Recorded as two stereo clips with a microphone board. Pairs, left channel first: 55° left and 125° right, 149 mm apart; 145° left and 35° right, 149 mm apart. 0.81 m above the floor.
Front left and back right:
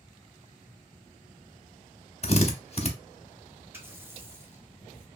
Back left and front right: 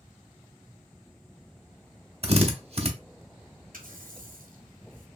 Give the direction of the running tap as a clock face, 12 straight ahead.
2 o'clock.